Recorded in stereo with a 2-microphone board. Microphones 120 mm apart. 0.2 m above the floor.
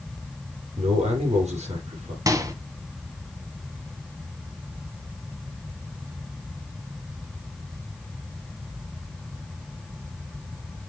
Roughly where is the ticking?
I don't hear ticking.